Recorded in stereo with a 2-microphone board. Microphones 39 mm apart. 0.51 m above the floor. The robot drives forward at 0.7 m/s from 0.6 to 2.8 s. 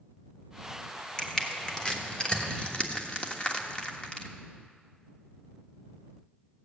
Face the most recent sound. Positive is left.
turn(degrees=30)  # may be behind; listen again after turning